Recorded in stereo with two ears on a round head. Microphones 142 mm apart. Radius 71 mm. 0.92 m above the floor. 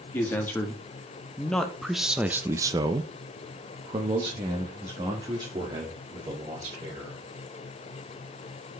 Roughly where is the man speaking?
Centre.